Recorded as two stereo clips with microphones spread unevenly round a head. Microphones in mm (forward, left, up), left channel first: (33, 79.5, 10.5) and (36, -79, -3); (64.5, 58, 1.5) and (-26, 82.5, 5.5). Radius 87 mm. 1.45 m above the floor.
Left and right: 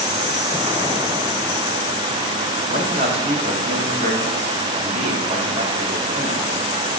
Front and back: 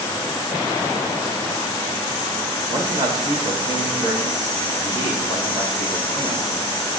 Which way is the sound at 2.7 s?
40° right.